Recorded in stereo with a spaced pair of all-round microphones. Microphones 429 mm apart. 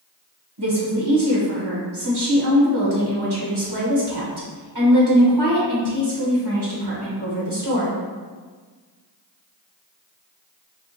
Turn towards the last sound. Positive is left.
turn(degrees=-65)  # may be behind; listen again after turning